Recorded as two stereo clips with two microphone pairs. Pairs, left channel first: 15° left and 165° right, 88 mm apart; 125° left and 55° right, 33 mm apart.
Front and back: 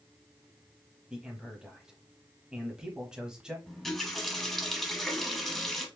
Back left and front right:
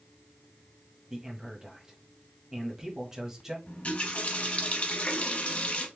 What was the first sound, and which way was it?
A man speaking, 90° right.